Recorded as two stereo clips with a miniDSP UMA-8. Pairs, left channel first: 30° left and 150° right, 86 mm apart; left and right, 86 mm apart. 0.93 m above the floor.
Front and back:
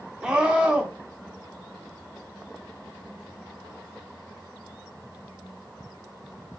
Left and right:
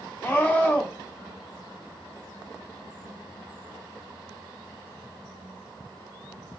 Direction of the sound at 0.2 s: 135° left.